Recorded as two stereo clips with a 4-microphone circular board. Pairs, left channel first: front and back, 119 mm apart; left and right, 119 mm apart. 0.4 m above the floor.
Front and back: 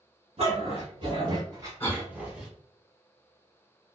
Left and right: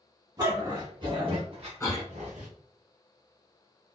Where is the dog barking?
150° right, 1.5 m; by 2.5 s 95° right, 1.0 m.